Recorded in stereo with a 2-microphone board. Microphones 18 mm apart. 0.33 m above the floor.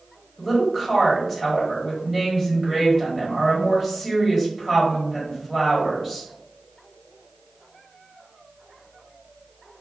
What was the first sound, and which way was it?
A woman speaking, centre (ahead or behind).